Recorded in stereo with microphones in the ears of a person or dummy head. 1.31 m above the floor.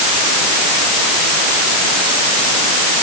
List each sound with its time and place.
Only background noise.